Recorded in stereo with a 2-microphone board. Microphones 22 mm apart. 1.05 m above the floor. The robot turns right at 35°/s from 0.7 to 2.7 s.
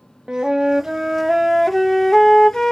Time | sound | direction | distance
0.3 | a flute | 30° right | 0.6 m